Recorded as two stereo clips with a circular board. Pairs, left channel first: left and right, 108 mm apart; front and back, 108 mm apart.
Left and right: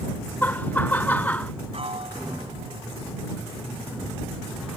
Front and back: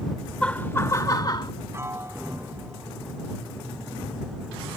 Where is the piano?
115° right.